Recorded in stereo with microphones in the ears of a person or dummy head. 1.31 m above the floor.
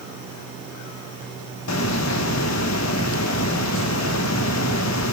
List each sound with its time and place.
1.7 s a hiss: 85° left, 1.3 m